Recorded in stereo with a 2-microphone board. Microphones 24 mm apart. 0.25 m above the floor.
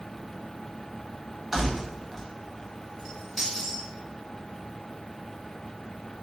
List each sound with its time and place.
1.5 s keys jangling: 15° right (ahead or behind), 0.7 m; by 3.9 s centre (ahead or behind), 1.8 m